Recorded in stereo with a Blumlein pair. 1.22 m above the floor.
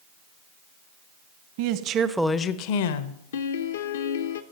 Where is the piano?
60° left, 0.7 m.